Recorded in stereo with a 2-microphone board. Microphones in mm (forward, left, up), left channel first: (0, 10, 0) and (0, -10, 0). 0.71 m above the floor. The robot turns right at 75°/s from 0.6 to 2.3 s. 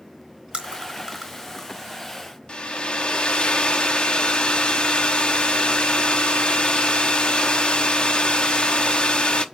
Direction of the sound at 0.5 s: 60° right (ahead or behind).